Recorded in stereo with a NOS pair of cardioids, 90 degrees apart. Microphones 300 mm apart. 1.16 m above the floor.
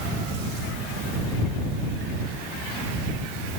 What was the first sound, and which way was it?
Only background noise.